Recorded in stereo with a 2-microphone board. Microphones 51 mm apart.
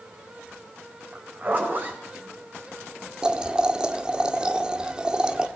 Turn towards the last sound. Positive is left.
turn(degrees=-20)  # may be behind; listen again after turning